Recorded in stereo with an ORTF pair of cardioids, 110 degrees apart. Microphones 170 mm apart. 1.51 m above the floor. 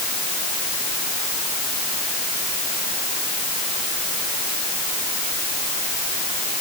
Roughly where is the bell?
I don't hear a bell.